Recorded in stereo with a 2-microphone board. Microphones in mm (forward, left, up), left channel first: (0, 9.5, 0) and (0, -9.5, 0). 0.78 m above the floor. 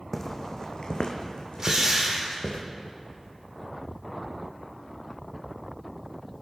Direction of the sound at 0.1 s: 20° left (ahead or behind).